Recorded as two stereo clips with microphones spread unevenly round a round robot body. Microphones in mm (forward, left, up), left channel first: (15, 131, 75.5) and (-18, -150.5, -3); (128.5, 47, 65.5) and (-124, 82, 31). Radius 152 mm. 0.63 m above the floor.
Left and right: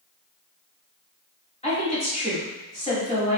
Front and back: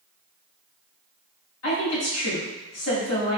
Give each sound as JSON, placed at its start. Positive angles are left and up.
{"t": 1.6, "sound": "a woman speaking", "azimuth_deg": 10, "distance_m": 1.8}